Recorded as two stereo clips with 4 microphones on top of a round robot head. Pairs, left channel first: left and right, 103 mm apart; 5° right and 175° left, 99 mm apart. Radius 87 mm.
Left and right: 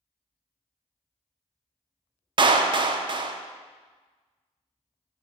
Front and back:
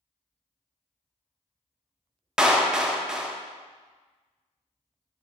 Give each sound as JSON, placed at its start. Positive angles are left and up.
{"t": 2.4, "sound": "a clap", "azimuth_deg": -105, "distance_m": 0.6}